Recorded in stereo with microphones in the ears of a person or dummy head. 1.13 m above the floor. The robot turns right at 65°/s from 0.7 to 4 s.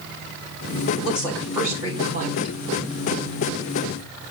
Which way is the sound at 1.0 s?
150° left.